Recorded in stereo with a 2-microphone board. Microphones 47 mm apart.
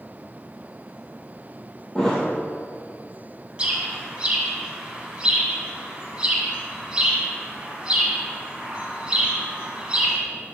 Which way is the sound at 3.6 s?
20° right (ahead or behind).